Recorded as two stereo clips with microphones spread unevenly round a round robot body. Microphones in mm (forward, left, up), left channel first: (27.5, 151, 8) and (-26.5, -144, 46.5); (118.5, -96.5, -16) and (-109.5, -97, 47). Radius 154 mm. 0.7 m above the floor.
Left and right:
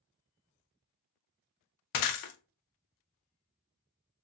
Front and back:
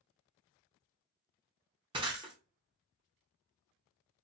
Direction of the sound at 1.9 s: 105° left.